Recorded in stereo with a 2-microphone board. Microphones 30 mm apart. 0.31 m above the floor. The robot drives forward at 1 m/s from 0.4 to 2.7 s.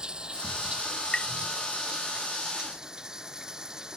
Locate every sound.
0.0 s running water: 30° right (ahead or behind); by 4.0 s 25° right (ahead or behind)
1.1 s tapping: 30° left (ahead or behind); by 1.3 s 35° left (ahead or behind)